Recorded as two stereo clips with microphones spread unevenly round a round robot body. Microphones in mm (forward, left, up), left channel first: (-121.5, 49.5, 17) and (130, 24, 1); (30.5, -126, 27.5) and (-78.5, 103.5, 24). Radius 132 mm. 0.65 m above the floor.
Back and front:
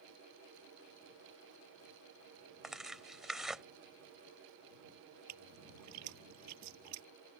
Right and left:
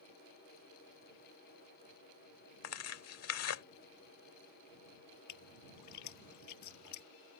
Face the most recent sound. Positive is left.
turn(degrees=-40)